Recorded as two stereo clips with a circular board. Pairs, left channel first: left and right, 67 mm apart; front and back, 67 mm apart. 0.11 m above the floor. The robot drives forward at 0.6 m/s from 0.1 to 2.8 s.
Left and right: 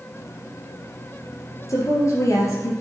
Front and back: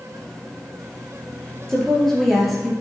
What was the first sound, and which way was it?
A woman speaking, 80° left.